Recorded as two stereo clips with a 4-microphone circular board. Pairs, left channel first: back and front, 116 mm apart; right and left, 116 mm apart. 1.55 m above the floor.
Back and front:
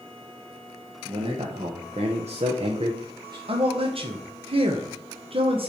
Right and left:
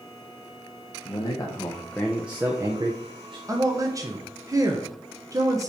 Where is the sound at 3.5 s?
30° left, 1.0 m.